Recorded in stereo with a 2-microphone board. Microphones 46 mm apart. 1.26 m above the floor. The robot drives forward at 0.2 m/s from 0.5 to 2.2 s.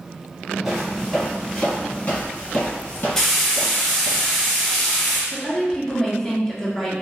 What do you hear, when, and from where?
0.7 s footsteps: 5° right (ahead or behind), 1.3 m; by 4.2 s 50° left (ahead or behind), 2 m
3.2 s frying: 10° left (ahead or behind), 0.7 m
5.3 s a woman speaking: 10° left (ahead or behind), 0.7 m